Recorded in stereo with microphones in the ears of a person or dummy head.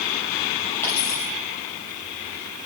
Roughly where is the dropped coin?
Centre.